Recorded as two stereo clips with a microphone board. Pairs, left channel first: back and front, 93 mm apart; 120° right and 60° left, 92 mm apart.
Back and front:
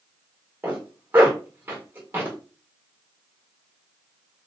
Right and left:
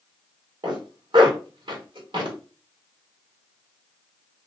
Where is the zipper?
70° left, 1.4 m.